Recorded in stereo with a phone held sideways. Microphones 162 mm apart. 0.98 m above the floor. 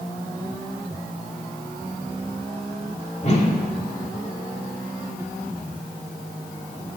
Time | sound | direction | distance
3.2 | a whoosh | 45° left (ahead or behind) | 2 m